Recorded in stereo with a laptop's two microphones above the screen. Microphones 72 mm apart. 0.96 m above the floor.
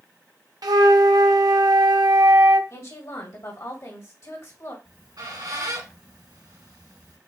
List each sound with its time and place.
0.6 s a flute: 70° right (ahead or behind), 0.6 m
2.7 s a woman speaking: 55° left (ahead or behind), 1.8 m
4.8 s a squeak: 75° right (ahead or behind), 2 m